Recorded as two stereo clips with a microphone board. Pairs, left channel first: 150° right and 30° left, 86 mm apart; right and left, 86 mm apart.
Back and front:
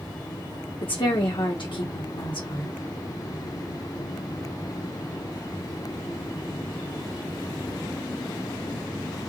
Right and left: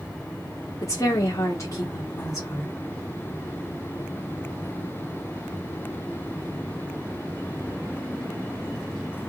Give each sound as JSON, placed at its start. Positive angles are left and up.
{"t": 0.8, "sound": "a woman speaking", "azimuth_deg": -140, "distance_m": 1.2}